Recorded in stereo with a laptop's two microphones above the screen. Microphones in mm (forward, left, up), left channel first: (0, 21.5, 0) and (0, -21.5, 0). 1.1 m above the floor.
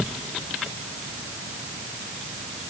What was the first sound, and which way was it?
Only background noise.